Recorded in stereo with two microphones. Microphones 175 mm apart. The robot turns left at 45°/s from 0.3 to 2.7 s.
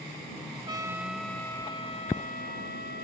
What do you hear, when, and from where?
0.7 s a trumpet: 155° right; by 3.0 s 110° left